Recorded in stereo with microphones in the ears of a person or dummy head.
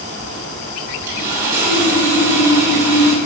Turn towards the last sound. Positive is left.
turn(degrees=-10)  # may be behind; listen again after turning